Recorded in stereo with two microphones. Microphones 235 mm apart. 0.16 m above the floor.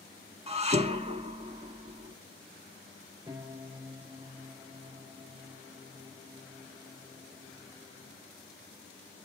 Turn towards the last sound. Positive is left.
turn(degrees=-15)  # may be behind; listen again after turning